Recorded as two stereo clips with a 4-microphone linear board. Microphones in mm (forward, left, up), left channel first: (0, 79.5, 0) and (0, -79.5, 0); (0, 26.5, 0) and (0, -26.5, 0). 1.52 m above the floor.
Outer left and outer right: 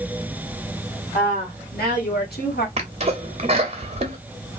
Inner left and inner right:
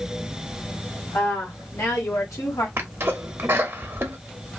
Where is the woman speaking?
70° left (ahead or behind), 2 m; by 2.7 s 80° left, 1.4 m.